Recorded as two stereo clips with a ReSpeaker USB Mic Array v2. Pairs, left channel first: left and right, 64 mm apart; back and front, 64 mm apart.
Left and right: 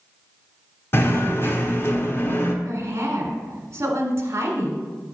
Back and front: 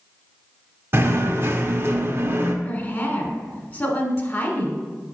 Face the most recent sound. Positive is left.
turn(degrees=-125)